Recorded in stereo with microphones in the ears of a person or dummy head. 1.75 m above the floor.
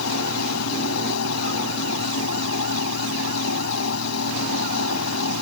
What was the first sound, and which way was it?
A fan, 85° left.